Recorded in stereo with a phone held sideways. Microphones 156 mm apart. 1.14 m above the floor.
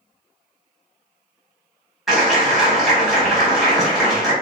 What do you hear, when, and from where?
2.1 s a clap: centre (ahead or behind), 1.2 m